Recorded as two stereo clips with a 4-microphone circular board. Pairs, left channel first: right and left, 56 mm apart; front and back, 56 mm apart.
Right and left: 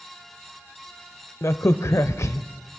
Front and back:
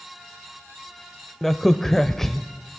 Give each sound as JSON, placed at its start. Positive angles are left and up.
{"t": 1.4, "sound": "a crack", "azimuth_deg": -85, "distance_m": 0.5}